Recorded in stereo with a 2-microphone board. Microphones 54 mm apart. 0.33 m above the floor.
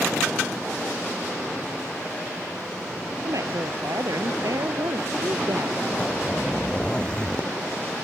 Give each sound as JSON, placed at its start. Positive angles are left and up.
{"t": 3.2, "sound": "a woman speaking", "side_deg": -80}
{"t": 6.0, "sound": "a zipper", "side_deg": 15}